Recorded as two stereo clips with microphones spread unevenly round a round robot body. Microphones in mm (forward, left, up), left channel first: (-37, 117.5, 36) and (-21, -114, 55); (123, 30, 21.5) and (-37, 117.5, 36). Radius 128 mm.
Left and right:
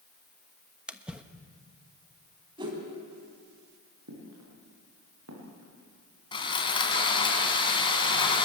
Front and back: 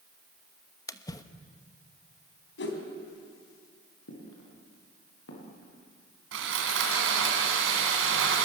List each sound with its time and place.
0.9 s a splash: 5° left, 1.2 m
2.6 s a whoosh: 15° right, 4 m
4.1 s footsteps: 55° right, 9 m; by 5.7 s 50° right, 10 m
6.3 s sawing: 165° left, 3 m